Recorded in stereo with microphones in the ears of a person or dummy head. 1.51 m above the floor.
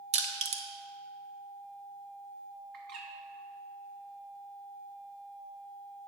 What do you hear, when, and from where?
0.1 s crushing: 35° right (ahead or behind), 0.7 m
2.7 s a bird: 65° right (ahead or behind), 1.2 m